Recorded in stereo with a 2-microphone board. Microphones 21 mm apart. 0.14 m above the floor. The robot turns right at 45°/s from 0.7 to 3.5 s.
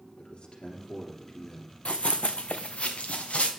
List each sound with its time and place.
0.2 s a man speaking: 90° left, 2.5 m; by 1.8 s 135° left, 2.5 m
1.9 s running footsteps: 75° left (ahead or behind), 0.6 m